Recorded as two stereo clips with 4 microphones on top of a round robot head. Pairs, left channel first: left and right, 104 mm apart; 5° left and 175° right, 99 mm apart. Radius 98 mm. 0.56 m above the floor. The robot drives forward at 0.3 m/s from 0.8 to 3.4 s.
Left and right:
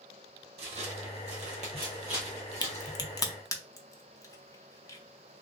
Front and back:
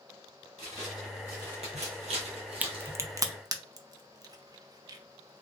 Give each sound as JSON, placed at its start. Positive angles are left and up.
{"t": 0.6, "sound": "footsteps", "azimuth_deg": -80, "distance_m": 1.4}
{"t": 2.6, "sound": "a crack", "azimuth_deg": 115, "distance_m": 0.5}